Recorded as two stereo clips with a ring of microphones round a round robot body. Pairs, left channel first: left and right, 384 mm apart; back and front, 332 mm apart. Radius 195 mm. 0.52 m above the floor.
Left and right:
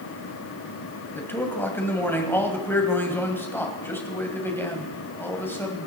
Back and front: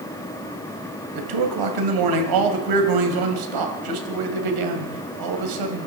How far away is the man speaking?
About 2.5 m.